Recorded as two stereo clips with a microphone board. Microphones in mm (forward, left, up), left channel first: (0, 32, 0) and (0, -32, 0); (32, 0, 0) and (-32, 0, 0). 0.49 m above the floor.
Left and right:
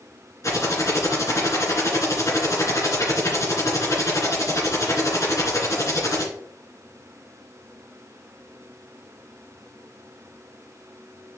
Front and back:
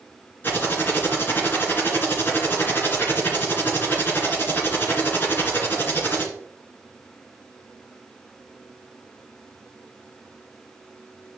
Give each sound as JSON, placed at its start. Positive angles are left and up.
{"t": 0.4, "sound": "typing on a keyboard", "azimuth_deg": 55, "distance_m": 2.5}